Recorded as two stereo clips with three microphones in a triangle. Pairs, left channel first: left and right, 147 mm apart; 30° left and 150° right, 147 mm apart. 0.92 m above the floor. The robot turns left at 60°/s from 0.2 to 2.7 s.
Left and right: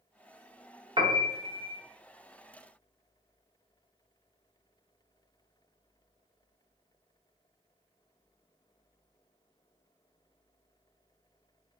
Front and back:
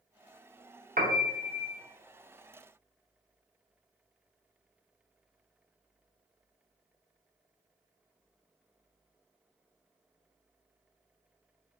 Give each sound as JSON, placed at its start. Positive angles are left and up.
{"t": 1.0, "sound": "a piano", "azimuth_deg": -145, "distance_m": 0.6}